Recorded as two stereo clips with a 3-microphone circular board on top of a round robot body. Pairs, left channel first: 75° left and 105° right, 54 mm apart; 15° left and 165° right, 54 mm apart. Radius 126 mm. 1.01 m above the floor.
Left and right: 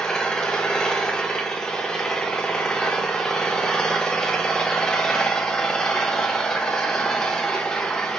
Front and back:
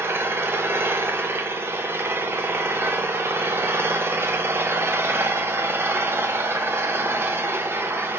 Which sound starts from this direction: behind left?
An engine running, at 0.0 s.